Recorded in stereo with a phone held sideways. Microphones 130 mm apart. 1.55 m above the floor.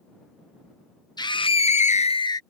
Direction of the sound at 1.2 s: 35° left (ahead or behind).